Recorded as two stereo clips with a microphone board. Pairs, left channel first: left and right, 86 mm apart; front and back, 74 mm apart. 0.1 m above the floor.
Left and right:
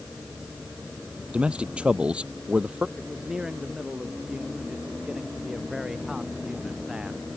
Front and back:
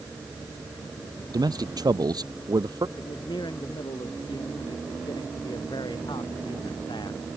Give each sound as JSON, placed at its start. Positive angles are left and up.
{"t": 1.3, "sound": "a man speaking", "azimuth_deg": -165}
{"t": 3.0, "sound": "a man speaking", "azimuth_deg": -10}